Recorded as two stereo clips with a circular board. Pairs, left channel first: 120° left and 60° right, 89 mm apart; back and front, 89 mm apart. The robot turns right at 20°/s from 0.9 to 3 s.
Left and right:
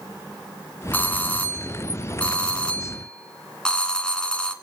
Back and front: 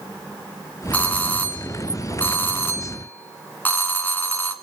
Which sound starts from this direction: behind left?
A doorbell, at 0.9 s.